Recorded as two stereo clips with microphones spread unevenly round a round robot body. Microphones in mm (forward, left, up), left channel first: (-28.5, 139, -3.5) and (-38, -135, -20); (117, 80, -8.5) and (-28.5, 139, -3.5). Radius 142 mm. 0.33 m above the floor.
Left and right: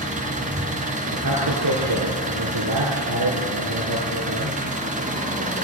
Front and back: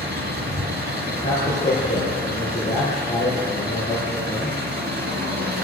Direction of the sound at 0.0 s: 155° right.